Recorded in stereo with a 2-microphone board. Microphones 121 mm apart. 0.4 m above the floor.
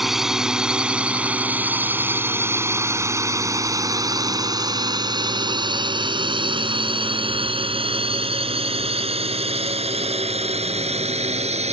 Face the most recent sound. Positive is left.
turn(degrees=-65)  # may be behind; listen again after turning